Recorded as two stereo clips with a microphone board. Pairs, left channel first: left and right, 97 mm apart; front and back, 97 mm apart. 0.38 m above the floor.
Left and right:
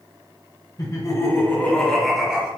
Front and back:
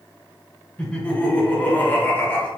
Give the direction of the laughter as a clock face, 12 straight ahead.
10 o'clock.